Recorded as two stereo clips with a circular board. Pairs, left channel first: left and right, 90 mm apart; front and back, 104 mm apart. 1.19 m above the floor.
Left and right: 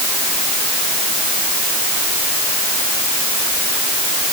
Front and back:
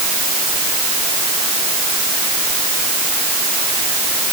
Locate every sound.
Only background noise.